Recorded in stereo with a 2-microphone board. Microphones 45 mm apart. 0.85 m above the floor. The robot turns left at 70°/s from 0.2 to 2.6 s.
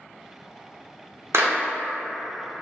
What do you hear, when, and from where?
1.3 s a clap: 75° right (ahead or behind), 0.6 m; by 1.6 s 65° right (ahead or behind), 0.6 m